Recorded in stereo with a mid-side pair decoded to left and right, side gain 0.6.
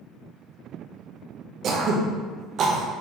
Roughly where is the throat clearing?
Ahead right.